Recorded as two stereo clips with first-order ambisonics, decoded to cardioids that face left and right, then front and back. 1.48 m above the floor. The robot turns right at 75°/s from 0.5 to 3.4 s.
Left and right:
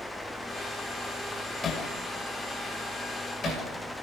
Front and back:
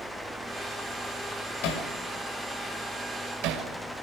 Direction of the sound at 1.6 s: 20° left.